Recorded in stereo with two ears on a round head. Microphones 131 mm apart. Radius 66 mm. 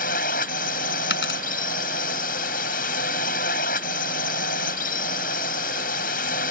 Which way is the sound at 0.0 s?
65° left (ahead or behind).